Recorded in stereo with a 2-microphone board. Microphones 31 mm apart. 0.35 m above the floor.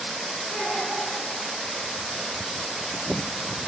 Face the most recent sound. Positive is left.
turn(degrees=40)  # may be behind; listen again after turning